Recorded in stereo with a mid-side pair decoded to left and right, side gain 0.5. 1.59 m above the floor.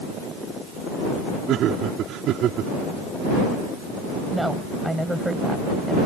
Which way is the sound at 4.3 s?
5° right.